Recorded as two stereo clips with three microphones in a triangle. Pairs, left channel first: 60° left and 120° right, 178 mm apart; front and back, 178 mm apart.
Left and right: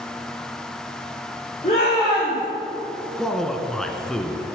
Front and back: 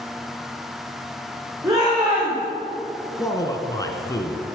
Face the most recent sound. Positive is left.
turn(degrees=-25)